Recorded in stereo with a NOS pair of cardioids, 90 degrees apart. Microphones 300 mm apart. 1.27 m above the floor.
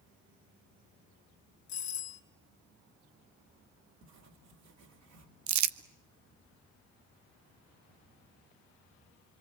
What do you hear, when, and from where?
1.7 s a doorbell: 70° left, 3 m
4.0 s writing: 65° right, 4 m
5.5 s crumpling: 70° right, 1.0 m